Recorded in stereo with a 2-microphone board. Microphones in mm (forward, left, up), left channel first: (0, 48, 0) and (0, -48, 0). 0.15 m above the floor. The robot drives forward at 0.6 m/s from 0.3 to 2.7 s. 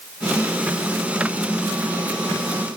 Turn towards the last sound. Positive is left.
No sound to turn to.